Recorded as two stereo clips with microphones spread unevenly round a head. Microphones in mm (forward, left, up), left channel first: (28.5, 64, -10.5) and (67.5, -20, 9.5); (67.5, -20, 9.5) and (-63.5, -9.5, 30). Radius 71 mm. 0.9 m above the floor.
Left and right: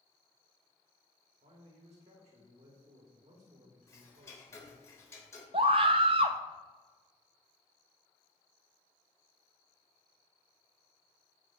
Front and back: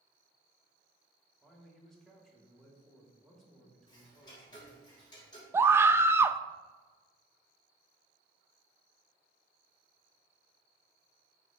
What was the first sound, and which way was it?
A man speaking, 90° right.